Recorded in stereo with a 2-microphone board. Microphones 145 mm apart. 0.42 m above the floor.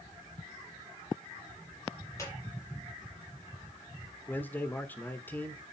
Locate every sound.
2.2 s a squeak: 20° left (ahead or behind), 5 m
4.3 s a man speaking: 15° left (ahead or behind), 1.2 m